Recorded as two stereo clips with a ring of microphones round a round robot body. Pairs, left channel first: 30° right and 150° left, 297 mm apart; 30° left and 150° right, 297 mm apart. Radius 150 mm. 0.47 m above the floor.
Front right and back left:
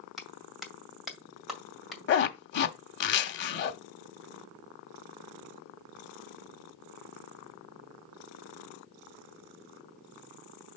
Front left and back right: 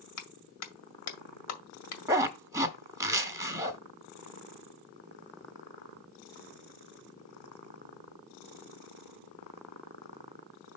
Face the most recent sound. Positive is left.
turn(degrees=-75)